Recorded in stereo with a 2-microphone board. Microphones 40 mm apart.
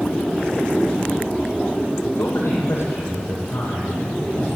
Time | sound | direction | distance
2.2 | a man speaking | 75° left (ahead or behind) | 8 m